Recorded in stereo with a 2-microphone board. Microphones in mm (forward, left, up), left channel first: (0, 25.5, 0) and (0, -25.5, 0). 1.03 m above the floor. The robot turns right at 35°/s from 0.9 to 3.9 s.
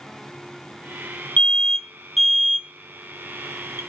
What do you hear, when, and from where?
1.4 s an alarm: 30° left (ahead or behind), 0.7 m; by 3.8 s 55° right (ahead or behind), 0.7 m